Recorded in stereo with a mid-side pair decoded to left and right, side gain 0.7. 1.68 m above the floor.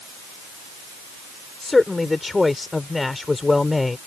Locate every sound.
1.6 s a man speaking: 15° left